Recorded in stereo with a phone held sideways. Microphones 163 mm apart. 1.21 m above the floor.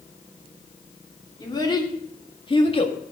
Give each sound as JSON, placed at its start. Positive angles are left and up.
{"t": 1.4, "sound": "a child speaking", "side_deg": 25, "distance_m": 3.0}